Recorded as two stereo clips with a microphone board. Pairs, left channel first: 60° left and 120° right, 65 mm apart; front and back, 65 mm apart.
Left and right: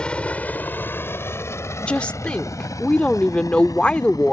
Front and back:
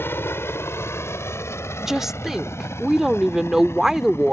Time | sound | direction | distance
0.0 | a helicopter | 5° right | ?
1.8 | a woman speaking | 105° left | ?